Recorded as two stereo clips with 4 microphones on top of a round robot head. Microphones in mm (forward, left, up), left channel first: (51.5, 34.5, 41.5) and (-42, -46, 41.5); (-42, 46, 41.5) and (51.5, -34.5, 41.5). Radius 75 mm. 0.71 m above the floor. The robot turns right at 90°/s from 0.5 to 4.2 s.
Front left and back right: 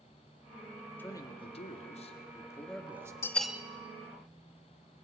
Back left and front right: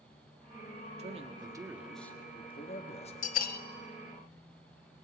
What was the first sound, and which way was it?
A man speaking, 30° right.